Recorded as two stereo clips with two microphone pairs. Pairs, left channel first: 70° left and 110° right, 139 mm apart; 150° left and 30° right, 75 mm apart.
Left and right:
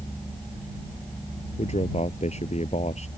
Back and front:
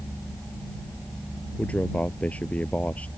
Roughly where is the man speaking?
Left.